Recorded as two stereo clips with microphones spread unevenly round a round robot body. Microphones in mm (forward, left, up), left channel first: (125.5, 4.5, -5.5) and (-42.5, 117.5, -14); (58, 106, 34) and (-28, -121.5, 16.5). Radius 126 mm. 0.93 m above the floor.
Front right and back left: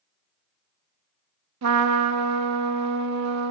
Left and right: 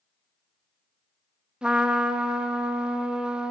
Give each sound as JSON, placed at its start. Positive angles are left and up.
{"t": 1.6, "sound": "a trumpet", "azimuth_deg": 160, "distance_m": 0.8}